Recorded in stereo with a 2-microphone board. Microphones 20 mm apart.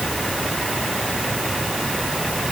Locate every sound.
Only background noise.